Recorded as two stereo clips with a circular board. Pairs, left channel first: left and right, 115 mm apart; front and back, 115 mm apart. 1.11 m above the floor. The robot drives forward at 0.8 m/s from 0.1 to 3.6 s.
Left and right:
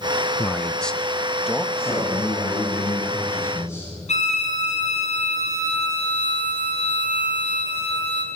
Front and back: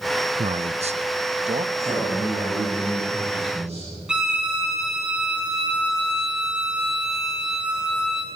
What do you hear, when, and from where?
0.4 s a man speaking: 170° left, 0.5 m; by 1.6 s 175° left, 1.5 m
1.8 s a man speaking: 150° left, 9.5 m; by 3.9 s 155° left, 10.5 m
4.1 s a violin: 100° left, 4.5 m